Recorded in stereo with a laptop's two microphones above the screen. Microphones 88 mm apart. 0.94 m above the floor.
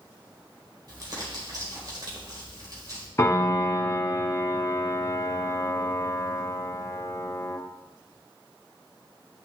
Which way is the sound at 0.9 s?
45° right (ahead or behind).